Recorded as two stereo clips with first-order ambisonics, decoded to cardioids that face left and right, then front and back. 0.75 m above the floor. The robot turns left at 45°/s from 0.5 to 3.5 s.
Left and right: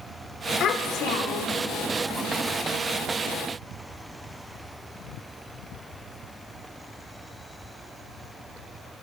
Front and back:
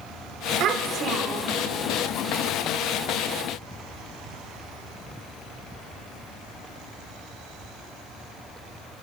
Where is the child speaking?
145° left, 1.4 m; by 1.6 s 100° left, 1.4 m.